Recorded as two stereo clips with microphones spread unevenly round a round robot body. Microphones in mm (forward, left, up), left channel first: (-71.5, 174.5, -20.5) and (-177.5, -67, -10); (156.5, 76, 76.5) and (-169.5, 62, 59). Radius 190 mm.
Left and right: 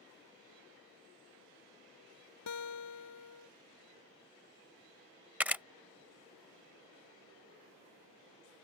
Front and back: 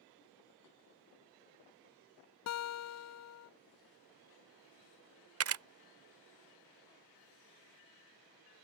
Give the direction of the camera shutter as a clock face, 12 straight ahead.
7 o'clock.